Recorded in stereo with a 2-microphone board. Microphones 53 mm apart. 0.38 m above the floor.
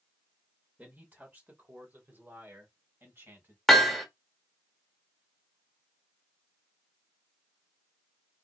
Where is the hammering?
5° left (ahead or behind), 1.2 m.